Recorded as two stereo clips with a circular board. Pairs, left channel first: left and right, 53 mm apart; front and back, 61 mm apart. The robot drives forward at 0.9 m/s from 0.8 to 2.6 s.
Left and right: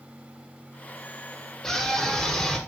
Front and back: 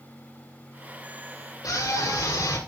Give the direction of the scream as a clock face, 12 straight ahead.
12 o'clock.